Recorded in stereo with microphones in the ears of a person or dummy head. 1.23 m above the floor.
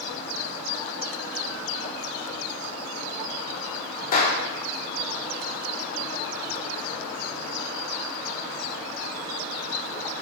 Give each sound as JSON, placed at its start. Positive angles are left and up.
{"t": 4.1, "sound": "a clap", "side_deg": 50, "distance_m": 3.0}